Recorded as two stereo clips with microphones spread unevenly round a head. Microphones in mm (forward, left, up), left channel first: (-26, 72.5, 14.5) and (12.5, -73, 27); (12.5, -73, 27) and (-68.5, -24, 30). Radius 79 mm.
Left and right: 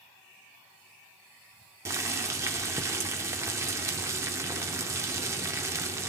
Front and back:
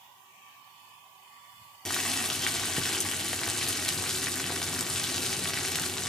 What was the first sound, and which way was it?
Boiling, 115° right.